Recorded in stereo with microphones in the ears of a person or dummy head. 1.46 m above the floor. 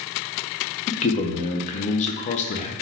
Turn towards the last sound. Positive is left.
turn(degrees=40)  # may be behind; listen again after turning